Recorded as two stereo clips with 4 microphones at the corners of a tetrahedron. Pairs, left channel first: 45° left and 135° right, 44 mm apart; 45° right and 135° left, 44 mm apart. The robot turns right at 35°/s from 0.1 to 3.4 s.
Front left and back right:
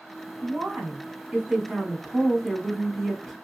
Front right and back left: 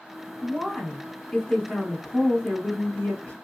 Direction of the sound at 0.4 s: 135° right.